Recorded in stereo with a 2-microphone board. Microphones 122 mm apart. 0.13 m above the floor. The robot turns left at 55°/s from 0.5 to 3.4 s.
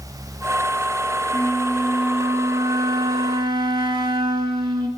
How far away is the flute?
About 0.9 m.